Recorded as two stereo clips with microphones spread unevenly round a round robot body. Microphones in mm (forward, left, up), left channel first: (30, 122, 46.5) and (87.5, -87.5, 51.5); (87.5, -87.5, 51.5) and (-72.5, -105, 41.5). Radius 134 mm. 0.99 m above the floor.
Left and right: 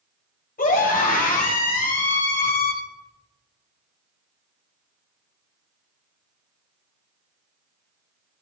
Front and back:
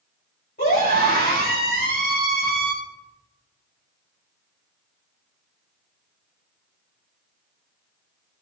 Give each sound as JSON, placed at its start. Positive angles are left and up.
{"t": 0.6, "sound": "a scream", "azimuth_deg": 60, "distance_m": 6.5}